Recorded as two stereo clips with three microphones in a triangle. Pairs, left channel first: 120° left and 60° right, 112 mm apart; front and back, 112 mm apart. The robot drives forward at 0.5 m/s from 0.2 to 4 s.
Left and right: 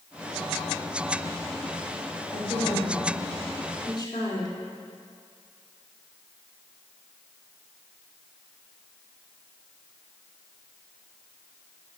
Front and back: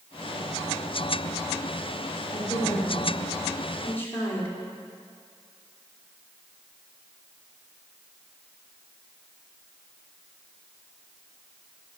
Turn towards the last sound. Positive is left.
turn(degrees=70)